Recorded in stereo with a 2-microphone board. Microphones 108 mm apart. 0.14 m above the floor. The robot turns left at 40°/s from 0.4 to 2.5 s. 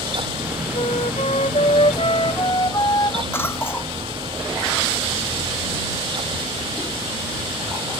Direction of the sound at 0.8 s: 110° left.